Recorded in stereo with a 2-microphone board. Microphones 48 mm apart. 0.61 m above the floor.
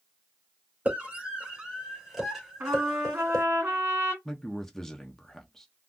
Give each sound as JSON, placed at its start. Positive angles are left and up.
{"t": 0.8, "sound": "a scream", "side_deg": -30, "distance_m": 2.0}
{"t": 2.6, "sound": "a trumpet", "side_deg": -45, "distance_m": 1.7}
{"t": 4.2, "sound": "a man speaking", "side_deg": 10, "distance_m": 0.5}